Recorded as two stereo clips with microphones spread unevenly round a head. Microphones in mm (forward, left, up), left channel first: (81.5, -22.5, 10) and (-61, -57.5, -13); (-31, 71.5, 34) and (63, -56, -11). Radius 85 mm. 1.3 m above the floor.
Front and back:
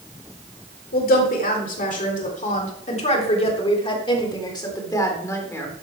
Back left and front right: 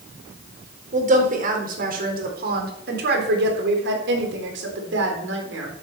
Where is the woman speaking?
10° right, 4 m; by 5.7 s 60° right, 4 m.